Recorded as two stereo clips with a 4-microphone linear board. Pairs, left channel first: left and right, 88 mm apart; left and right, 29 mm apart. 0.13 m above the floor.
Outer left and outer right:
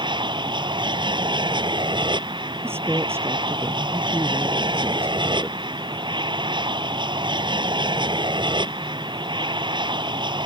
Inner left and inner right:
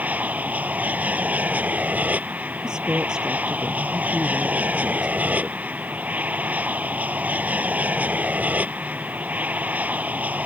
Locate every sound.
0.0 s an aircraft: 60° right (ahead or behind)
2.6 s a woman speaking: 25° right (ahead or behind)